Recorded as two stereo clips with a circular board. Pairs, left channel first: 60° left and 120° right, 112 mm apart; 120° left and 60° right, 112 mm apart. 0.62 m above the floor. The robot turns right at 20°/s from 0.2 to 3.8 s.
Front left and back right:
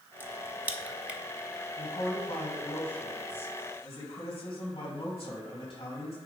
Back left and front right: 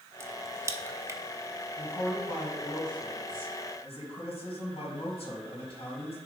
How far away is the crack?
About 0.6 m.